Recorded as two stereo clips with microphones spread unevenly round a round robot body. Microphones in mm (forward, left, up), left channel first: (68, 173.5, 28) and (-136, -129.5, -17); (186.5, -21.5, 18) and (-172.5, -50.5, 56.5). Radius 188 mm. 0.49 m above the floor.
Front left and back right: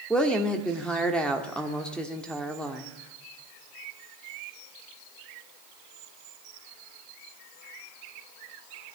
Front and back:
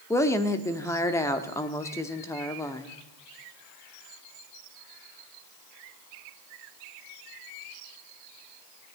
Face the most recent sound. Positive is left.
turn(degrees=-45)